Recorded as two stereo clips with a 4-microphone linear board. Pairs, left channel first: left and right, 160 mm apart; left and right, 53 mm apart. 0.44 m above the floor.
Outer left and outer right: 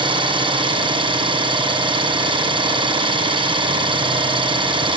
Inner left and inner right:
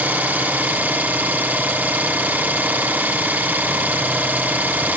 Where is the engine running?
30° right (ahead or behind), 4 m.